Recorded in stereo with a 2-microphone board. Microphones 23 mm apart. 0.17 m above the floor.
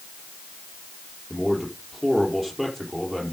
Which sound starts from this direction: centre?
A man speaking, at 1.3 s.